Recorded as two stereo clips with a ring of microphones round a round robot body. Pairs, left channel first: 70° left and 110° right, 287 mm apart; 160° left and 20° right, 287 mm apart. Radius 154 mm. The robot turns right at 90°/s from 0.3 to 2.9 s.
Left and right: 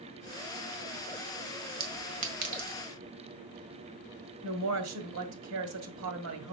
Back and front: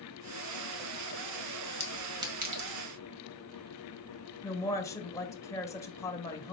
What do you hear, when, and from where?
1.8 s a clink: 135° right, 1.8 m; by 2.8 s 50° right, 1.8 m
4.4 s a woman speaking: 125° right, 1.6 m